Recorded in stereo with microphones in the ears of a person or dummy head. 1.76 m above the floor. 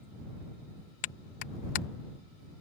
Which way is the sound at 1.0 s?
50° left (ahead or behind).